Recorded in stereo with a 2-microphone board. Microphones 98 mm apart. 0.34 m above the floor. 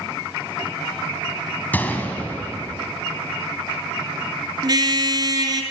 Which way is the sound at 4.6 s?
40° right (ahead or behind).